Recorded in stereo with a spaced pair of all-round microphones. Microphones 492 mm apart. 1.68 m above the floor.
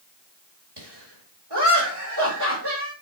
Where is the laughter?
55° right (ahead or behind), 2.5 m.